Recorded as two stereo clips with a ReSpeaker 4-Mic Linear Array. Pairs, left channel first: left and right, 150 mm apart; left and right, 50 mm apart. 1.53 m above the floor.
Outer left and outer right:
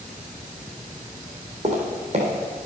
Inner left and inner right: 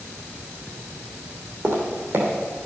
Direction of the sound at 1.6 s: 50° right (ahead or behind).